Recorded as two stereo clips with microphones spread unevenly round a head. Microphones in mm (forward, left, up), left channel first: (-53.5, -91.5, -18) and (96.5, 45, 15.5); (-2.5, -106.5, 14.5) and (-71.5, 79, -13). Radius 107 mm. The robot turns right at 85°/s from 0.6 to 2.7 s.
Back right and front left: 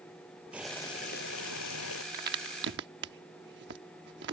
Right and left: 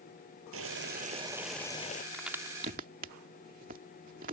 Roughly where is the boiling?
Behind left.